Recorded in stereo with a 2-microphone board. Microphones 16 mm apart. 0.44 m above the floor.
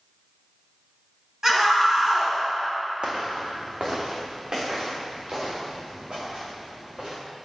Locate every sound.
1.4 s a scream: 35° right (ahead or behind), 3 m
3.0 s footsteps: 75° right (ahead or behind), 1.6 m; by 7.2 s 80° right, 5.5 m